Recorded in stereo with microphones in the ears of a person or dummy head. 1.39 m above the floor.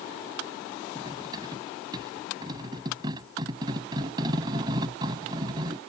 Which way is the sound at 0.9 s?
25° right (ahead or behind).